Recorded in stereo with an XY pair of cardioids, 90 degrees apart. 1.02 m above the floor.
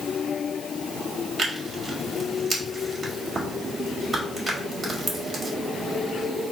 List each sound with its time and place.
1.4 s tearing paper: 45° right, 1.7 m